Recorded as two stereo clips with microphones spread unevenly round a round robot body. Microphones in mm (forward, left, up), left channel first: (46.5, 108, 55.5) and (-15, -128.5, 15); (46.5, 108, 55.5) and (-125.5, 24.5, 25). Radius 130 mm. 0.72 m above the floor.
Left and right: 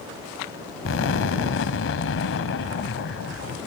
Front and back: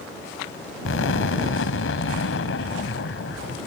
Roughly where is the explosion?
Ahead left.